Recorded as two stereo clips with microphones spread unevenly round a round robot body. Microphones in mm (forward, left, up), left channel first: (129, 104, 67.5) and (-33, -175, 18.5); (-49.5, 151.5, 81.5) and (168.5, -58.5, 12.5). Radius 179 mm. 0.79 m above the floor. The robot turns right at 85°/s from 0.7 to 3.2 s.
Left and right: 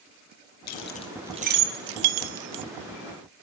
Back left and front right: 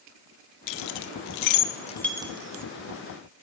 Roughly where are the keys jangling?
Left.